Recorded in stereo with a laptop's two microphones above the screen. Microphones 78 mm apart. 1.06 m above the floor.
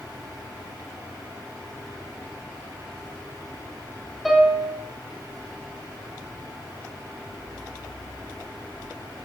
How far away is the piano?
About 3 m.